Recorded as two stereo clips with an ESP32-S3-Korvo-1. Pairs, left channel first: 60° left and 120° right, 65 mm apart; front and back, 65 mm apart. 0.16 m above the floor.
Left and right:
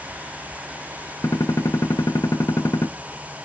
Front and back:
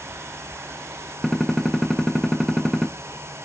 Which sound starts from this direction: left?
A gunshot, at 1.2 s.